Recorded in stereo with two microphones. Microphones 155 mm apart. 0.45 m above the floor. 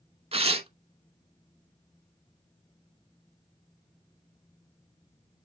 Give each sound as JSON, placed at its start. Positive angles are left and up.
{"t": 0.3, "sound": "tearing paper", "side_deg": -40, "distance_m": 0.7}